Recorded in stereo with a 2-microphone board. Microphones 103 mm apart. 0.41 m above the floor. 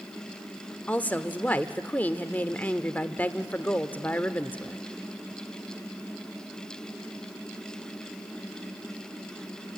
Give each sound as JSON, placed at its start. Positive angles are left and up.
{"t": 0.9, "sound": "a woman speaking", "side_deg": 15, "distance_m": 0.8}